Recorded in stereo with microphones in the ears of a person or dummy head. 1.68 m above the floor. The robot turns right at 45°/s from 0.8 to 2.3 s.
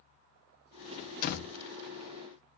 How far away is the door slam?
About 1.5 m.